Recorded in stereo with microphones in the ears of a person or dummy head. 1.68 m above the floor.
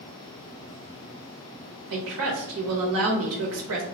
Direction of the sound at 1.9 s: 80° right.